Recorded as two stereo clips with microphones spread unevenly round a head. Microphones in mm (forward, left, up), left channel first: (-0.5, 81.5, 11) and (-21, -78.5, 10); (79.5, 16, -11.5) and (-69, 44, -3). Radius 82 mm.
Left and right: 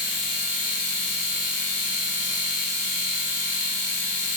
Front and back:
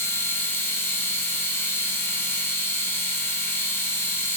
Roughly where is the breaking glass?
I don't hear breaking glass.